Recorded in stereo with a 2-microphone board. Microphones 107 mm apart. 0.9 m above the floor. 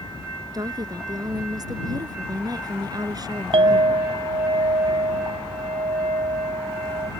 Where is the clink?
70° right (ahead or behind).